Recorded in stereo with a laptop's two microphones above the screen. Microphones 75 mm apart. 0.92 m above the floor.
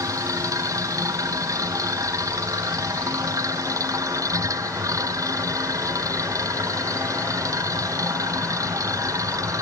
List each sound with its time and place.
0.0 s a machine running: 45° right (ahead or behind)